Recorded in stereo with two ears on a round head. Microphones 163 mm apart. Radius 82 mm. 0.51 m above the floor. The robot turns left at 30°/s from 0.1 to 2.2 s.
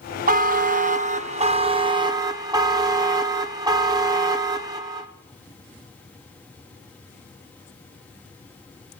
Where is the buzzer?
95° right, 0.7 m; by 5.1 s 150° right, 0.7 m.